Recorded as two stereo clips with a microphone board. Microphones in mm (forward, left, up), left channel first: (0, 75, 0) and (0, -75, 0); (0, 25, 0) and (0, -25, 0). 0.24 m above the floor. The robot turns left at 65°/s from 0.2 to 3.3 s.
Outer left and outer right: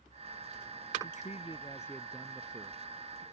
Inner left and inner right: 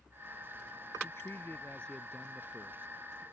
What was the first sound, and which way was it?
A man speaking, 70° left.